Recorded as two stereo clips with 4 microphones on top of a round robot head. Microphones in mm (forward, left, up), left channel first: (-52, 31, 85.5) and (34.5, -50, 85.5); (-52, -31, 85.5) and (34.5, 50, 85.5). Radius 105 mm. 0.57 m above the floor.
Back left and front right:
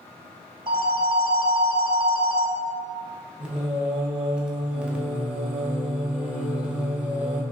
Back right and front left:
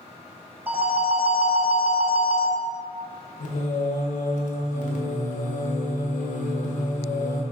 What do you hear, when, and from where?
0.7 s a phone ringing: 25° right, 0.6 m
3.4 s singing: 125° right, 0.6 m